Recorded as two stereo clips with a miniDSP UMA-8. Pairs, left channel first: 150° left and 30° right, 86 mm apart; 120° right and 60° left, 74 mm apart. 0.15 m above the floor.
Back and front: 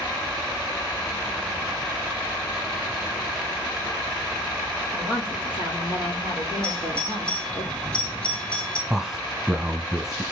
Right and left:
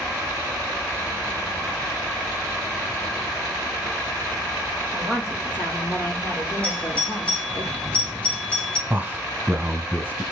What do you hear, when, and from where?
4.9 s a woman speaking: 170° left, 5.5 m; by 7.6 s 170° right, 6 m
6.6 s a doorbell: 165° right, 2 m
8.9 s a man speaking: 50° left, 1.3 m